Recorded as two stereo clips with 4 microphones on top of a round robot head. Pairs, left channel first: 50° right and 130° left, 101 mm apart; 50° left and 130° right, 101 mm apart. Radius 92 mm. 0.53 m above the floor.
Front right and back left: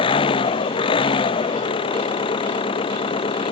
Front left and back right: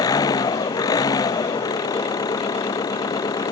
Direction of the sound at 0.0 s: 5° right.